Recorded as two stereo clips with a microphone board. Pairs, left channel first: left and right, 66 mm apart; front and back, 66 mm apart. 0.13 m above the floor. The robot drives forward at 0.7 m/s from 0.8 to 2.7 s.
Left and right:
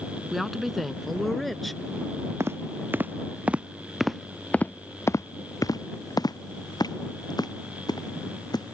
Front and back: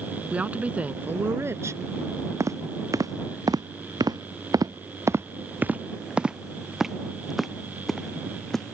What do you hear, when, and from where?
0.3 s a woman speaking: straight behind
2.4 s footsteps: 135° right; by 8.8 s 85° left